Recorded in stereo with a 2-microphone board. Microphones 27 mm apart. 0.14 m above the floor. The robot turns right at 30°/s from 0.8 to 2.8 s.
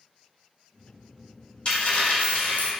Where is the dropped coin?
35° left, 1.1 m; by 2.7 s 65° left, 1.1 m.